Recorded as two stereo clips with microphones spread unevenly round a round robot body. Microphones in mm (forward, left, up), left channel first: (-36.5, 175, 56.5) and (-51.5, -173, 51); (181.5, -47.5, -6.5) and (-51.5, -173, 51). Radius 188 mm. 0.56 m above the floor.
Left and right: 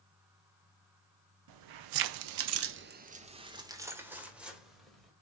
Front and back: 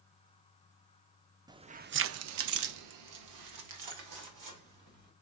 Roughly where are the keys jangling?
Right.